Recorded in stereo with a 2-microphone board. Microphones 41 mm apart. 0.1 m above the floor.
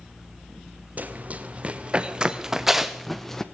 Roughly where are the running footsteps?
Right.